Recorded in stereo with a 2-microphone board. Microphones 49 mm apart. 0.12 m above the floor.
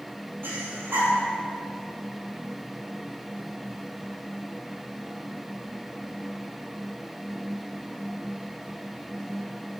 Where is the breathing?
60° right (ahead or behind), 2.5 m.